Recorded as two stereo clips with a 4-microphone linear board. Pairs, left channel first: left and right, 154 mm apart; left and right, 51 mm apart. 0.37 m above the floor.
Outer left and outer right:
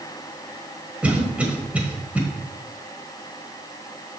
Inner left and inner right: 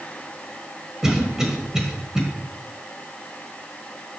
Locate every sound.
1.0 s a cough: 10° right (ahead or behind), 1.4 m